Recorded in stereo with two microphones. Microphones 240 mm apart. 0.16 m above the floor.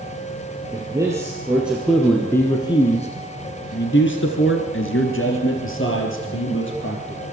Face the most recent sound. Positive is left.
turn(degrees=55)  # may be behind; listen again after turning